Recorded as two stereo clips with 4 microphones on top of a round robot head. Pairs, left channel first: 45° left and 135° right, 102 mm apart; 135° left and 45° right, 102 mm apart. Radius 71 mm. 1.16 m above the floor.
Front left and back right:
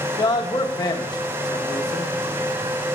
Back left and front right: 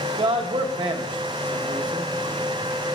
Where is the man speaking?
5° right, 1.1 m.